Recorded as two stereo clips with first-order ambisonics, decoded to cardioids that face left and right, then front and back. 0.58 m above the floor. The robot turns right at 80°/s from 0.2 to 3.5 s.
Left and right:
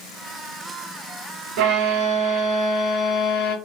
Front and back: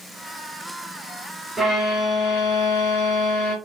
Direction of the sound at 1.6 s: 100° right.